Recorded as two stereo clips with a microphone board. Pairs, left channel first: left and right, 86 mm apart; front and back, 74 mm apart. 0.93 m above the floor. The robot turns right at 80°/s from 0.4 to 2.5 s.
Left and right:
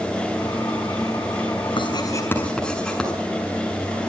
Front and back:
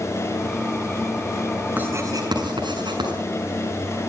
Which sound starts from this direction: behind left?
Writing, at 1.8 s.